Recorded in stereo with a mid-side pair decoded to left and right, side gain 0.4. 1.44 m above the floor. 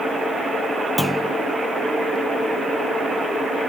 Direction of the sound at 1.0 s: 10° right.